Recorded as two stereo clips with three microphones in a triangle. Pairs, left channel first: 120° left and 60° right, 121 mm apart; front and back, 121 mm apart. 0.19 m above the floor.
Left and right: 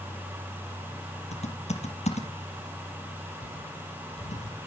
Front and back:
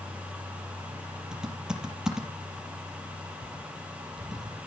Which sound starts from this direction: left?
Typing on a keyboard, at 1.3 s.